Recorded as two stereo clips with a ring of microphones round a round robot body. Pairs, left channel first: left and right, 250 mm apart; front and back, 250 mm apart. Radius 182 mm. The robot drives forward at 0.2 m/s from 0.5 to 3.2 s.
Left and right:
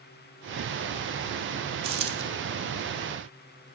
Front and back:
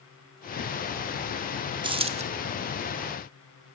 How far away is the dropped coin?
About 0.7 m.